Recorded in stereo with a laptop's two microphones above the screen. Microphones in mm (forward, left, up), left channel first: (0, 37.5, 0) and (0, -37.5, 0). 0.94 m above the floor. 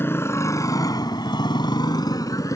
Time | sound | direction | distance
0.0 | a motorcycle | 30° left (ahead or behind) | ?